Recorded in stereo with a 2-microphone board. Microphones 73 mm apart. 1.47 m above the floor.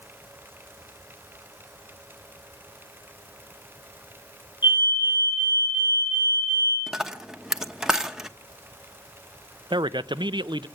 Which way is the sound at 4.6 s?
80° left.